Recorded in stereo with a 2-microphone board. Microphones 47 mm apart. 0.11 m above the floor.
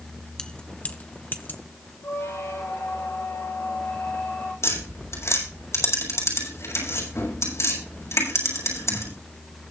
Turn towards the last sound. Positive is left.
turn(degrees=75)  # may be behind; listen again after turning